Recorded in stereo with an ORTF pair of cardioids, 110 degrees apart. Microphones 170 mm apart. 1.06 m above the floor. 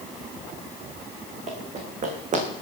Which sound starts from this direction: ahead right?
Running footsteps, at 1.5 s.